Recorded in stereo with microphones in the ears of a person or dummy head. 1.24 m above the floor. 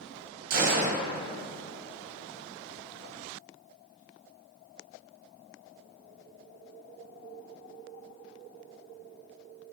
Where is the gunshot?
45° right (ahead or behind), 0.8 m.